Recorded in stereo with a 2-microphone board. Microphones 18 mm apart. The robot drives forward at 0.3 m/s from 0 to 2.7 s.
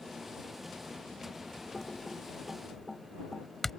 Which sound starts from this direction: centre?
Typing on a keyboard, at 1.7 s.